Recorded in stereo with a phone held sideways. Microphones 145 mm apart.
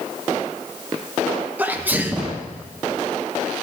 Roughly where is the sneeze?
Centre.